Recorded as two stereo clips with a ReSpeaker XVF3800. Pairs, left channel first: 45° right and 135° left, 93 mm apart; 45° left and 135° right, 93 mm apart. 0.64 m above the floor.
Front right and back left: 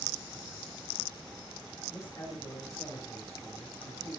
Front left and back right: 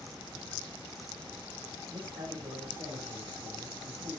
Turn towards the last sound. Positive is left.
turn(degrees=-105)